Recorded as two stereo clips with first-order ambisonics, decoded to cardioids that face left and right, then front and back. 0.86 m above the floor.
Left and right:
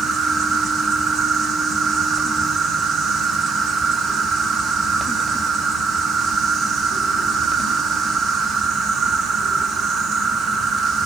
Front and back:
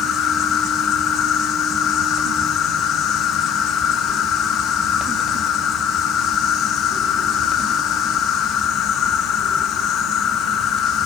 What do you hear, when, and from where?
0.0 s an insect: 35° right, 0.9 m